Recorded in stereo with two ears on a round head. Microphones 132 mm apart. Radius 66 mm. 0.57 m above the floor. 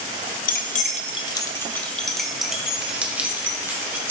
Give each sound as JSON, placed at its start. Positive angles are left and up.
{"t": 0.5, "sound": "keys jangling", "side_deg": 60, "distance_m": 0.7}